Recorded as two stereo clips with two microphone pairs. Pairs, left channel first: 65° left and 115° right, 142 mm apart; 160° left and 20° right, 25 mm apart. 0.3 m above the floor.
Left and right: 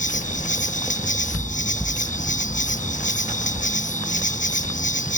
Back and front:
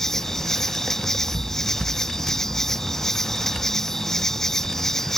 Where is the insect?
90° left.